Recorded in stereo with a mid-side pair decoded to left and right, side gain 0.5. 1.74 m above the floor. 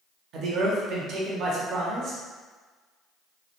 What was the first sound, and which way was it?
A man speaking, 65° right.